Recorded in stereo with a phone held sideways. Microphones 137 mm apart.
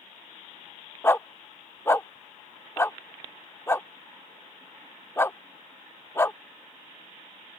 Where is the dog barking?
20° left (ahead or behind).